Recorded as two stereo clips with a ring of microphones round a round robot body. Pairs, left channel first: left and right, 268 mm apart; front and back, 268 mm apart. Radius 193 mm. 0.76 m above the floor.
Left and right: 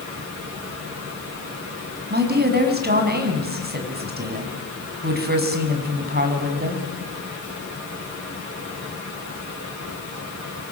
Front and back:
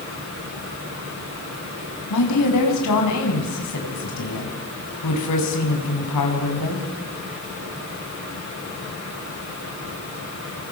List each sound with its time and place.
2.1 s a woman speaking: 40° right, 6.5 m